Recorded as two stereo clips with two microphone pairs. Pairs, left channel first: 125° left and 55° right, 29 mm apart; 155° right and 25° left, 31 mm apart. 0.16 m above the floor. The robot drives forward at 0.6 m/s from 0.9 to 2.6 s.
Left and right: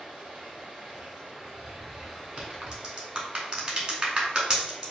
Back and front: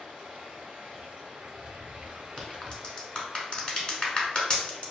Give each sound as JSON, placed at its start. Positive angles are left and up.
{"t": 0.0, "sound": "running water", "azimuth_deg": 10, "distance_m": 1.3}
{"t": 2.4, "sound": "a crack", "azimuth_deg": -95, "distance_m": 0.7}